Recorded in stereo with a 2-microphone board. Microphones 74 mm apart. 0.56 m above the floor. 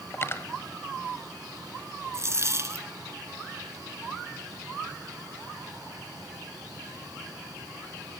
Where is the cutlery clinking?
35° left (ahead or behind), 1.5 m.